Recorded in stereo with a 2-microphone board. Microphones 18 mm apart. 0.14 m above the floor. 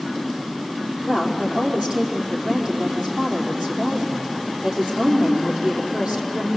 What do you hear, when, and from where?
1.0 s a woman speaking: 70° right (ahead or behind), 5 m